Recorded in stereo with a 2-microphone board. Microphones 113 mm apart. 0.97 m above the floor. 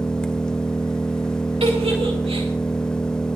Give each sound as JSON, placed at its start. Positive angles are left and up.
{"t": 0.0, "sound": "an engine running", "side_deg": 5, "distance_m": 0.9}
{"t": 1.6, "sound": "a giggle", "side_deg": -60, "distance_m": 2.5}